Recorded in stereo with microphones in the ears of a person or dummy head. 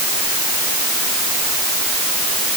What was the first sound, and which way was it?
Only background noise.